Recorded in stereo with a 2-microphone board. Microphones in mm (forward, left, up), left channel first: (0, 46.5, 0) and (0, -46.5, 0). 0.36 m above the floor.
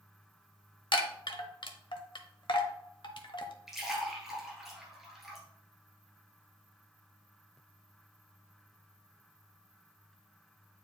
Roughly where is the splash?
Centre.